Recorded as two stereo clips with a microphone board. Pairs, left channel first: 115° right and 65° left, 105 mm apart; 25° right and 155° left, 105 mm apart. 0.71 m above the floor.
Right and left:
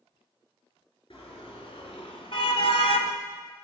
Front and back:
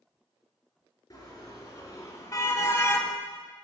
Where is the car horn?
80° right, 4 m; by 3.1 s 95° right, 1.3 m.